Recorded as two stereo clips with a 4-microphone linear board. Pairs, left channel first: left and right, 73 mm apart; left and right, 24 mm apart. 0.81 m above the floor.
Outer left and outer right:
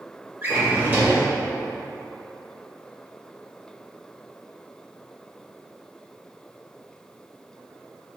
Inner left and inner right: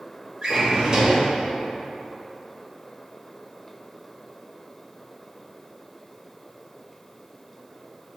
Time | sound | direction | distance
0.4 | a drawer | 25° right (ahead or behind) | 1.1 m